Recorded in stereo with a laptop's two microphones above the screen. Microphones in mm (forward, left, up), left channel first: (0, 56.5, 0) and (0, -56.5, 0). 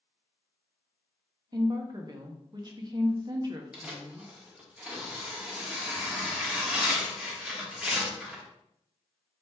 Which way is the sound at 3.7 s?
10° right (ahead or behind).